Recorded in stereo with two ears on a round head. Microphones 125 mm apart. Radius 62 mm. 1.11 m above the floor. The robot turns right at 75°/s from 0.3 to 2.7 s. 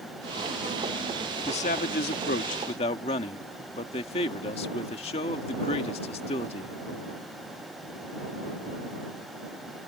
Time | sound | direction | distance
1.4 | a man speaking | 40° left | ?